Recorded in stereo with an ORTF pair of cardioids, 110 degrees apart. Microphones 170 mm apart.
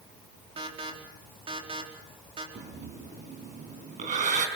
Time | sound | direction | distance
0.6 | an alarm | 35° right | 4.5 m
2.5 | breathing | 50° right | 4.5 m